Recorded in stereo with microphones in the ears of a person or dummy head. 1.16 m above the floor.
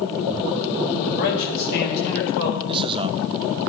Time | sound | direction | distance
1.1 | a man speaking | 60° left (ahead or behind) | 5 m
2.7 | a man speaking | 25° right (ahead or behind) | 1.1 m